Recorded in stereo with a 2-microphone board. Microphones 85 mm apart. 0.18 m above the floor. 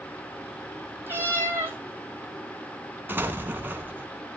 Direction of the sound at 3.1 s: 25° right (ahead or behind).